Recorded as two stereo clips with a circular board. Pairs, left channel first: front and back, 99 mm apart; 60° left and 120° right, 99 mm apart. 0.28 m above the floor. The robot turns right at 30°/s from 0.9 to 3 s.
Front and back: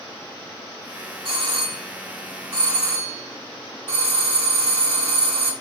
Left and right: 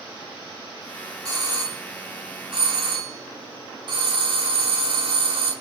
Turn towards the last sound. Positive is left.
turn(degrees=-110)